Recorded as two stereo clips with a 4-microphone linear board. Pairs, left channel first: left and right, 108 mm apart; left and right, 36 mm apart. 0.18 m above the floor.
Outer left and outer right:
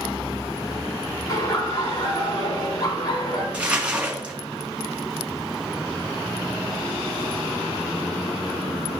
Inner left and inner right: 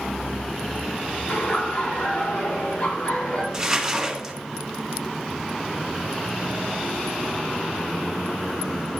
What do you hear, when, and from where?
1.3 s laughter: 40° left (ahead or behind), 4 m
3.5 s crumpling: 10° right (ahead or behind), 1.9 m